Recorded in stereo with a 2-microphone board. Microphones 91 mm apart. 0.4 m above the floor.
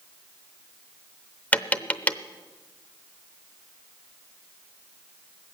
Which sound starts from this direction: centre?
Tapping, at 1.5 s.